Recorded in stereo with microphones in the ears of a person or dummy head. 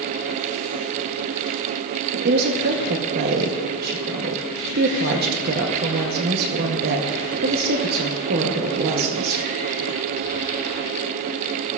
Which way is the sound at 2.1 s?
55° right (ahead or behind).